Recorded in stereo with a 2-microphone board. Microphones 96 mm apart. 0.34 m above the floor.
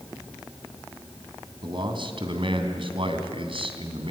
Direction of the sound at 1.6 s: 55° right (ahead or behind).